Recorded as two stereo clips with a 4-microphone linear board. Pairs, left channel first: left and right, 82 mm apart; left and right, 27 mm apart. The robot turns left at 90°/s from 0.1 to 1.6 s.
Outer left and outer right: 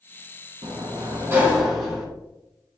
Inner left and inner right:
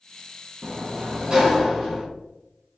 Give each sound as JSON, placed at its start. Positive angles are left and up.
{"t": 0.6, "sound": "a sliding door", "azimuth_deg": -85, "distance_m": 1.0}